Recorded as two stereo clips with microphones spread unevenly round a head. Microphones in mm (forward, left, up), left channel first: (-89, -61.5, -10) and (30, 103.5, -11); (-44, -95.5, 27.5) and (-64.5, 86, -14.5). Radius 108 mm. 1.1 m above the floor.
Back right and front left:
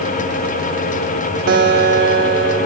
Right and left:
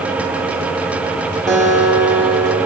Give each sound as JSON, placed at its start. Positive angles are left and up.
{"t": 1.5, "sound": "a guitar", "azimuth_deg": 0, "distance_m": 1.2}